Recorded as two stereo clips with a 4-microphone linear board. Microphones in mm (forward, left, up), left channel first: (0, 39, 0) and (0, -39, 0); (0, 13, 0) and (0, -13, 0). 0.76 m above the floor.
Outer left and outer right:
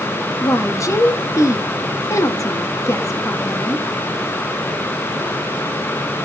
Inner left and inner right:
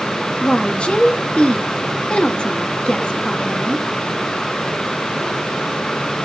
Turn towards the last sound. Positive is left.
turn(degrees=45)  # may be behind; listen again after turning